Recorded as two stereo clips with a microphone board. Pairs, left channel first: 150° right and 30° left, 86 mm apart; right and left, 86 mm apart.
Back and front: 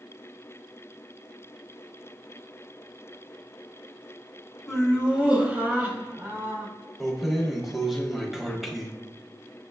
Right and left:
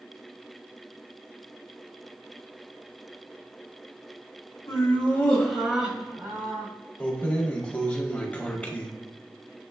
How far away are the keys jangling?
About 0.6 m.